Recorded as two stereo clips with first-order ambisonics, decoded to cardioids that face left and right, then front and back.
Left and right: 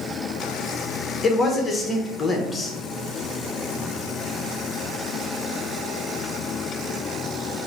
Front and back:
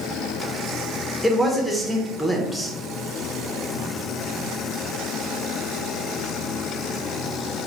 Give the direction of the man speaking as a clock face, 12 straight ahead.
9 o'clock.